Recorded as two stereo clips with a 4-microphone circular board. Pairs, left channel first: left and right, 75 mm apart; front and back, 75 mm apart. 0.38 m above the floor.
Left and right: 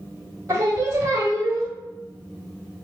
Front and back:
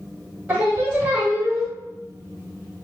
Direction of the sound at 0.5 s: 120° right.